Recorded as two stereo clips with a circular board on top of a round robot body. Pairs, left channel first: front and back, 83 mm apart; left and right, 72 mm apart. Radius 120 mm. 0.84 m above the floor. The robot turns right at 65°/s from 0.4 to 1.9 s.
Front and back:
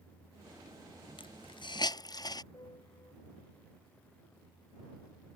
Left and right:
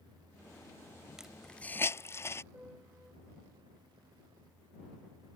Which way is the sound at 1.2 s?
10° right.